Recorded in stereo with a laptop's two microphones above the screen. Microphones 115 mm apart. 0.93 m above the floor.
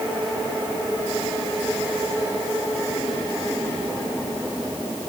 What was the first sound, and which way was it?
Only background noise.